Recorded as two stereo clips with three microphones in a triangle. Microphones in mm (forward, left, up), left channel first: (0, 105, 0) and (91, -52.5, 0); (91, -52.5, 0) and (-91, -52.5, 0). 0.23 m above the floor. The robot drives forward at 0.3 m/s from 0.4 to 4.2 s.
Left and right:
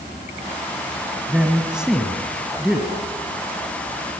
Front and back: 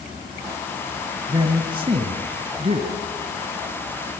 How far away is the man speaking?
About 1.7 m.